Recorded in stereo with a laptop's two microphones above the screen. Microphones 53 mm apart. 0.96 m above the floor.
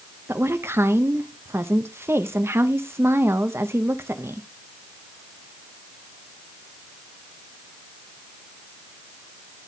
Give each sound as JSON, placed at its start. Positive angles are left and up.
{"t": 0.3, "sound": "a woman speaking", "side_deg": -55, "distance_m": 0.8}